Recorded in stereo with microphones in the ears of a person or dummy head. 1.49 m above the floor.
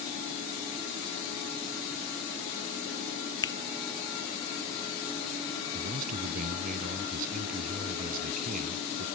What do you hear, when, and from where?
3.4 s a finger snap: 20° left (ahead or behind)
5.7 s a man speaking: 50° right (ahead or behind)